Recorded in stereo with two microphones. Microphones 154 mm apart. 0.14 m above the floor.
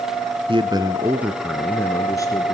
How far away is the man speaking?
About 1.3 m.